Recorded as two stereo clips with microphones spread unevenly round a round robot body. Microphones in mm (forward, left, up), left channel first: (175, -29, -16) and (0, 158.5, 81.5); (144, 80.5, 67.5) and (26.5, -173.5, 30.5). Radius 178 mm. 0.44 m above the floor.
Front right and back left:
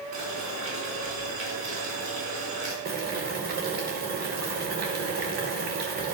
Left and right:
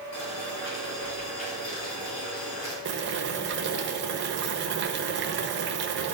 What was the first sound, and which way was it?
Boiling, 95° left.